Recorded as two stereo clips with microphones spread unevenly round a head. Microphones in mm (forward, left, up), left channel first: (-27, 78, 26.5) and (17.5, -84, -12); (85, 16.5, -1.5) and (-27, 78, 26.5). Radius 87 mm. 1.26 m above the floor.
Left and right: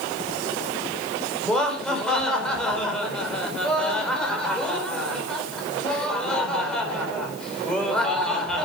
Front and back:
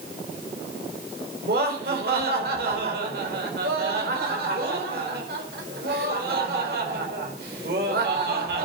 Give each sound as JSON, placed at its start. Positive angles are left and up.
{"t": 1.4, "sound": "laughter", "azimuth_deg": -170, "distance_m": 4.5}